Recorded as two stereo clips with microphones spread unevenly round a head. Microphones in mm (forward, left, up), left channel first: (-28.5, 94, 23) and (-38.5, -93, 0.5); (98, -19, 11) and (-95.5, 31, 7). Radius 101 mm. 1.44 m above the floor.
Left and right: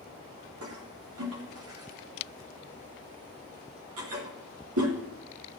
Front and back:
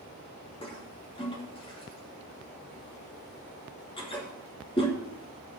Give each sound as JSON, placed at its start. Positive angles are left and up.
{"t": 0.6, "sound": "a toilet flushing", "azimuth_deg": -80, "distance_m": 2.5}